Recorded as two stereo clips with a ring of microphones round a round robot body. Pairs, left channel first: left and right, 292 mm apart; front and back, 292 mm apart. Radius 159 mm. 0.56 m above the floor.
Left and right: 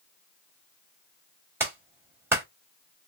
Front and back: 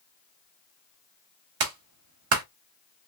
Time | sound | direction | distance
1.6 | a clap | 170° right | 1.3 m